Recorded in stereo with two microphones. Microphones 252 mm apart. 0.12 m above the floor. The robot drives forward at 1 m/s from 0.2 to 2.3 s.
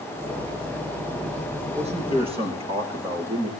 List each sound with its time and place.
1.8 s a man speaking: 25° right (ahead or behind), 4 m; by 3.5 s 20° right (ahead or behind), 4.5 m